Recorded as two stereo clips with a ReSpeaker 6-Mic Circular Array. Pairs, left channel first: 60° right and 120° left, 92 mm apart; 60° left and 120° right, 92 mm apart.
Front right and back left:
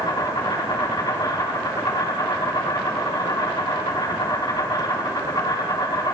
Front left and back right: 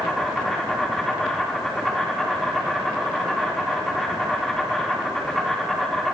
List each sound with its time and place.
0.0 s an insect: 30° right, 4.5 m